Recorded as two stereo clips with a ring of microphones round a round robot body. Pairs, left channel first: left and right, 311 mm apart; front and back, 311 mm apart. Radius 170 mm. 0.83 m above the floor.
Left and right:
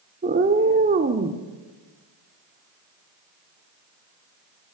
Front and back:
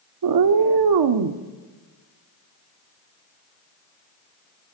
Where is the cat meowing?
155° right, 1.0 m.